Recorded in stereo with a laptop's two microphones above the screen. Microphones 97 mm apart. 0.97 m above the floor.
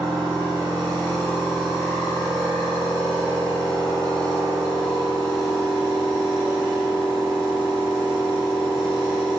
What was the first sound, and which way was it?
A machine running, 15° left (ahead or behind).